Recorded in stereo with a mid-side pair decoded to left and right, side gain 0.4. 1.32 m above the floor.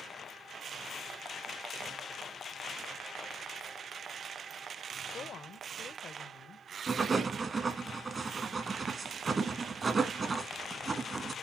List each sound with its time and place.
5.1 s a woman speaking: 60° left, 0.8 m
6.9 s writing: 40° right, 1.5 m